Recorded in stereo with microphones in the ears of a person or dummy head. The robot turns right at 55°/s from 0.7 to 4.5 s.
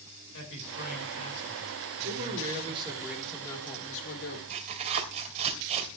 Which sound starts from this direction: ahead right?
A man speaking, at 2.0 s.